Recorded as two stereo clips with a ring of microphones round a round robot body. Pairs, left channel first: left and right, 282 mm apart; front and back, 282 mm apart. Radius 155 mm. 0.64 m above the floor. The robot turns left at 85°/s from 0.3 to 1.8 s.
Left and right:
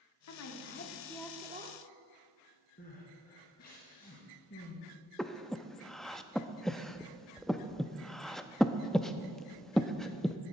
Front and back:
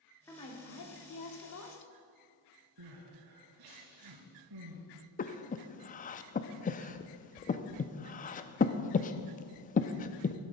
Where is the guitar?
No guitar in this recording.